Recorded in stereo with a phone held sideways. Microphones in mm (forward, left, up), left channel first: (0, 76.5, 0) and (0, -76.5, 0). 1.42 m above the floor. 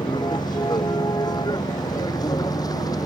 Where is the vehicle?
25° left (ahead or behind).